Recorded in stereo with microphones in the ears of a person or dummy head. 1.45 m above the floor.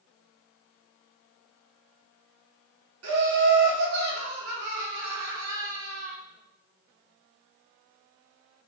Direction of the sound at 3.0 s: 75° right (ahead or behind).